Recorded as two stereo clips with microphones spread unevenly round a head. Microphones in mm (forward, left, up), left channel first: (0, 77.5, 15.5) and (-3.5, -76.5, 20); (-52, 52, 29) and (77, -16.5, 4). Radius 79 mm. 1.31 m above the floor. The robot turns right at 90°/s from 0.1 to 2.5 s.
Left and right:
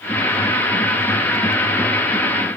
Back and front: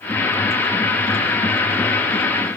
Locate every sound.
Only background noise.